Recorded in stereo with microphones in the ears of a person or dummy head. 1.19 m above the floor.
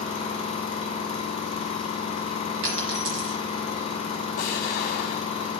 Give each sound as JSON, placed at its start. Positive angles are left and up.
{"t": 0.0, "sound": "an engine running", "side_deg": 25, "distance_m": 1.2}
{"t": 2.6, "sound": "a dropped coin", "side_deg": -55, "distance_m": 2.5}
{"t": 4.4, "sound": "an explosion", "side_deg": 55, "distance_m": 1.0}